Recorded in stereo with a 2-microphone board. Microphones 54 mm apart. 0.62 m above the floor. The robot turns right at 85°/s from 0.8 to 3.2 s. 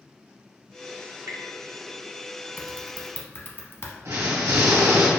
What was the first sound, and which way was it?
Dripping, 65° right (ahead or behind).